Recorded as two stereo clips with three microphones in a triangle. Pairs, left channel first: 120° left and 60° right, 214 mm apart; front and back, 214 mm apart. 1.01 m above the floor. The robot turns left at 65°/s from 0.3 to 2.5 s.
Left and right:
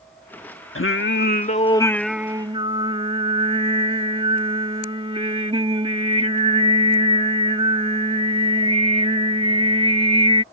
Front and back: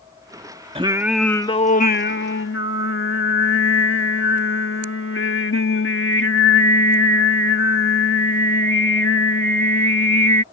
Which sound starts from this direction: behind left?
Singing, at 0.8 s.